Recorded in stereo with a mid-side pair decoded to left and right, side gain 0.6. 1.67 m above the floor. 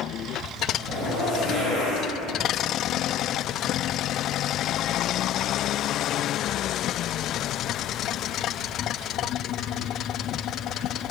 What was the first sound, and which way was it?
A zipper, 50° left.